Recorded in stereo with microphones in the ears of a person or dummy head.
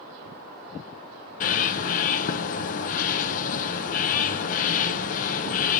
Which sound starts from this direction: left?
A bird, at 1.4 s.